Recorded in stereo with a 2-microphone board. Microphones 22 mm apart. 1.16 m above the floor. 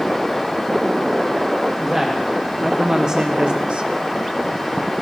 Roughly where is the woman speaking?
Centre.